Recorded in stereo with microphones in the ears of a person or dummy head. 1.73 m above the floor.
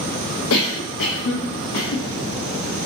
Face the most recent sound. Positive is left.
turn(degrees=75)  # may be behind; listen again after turning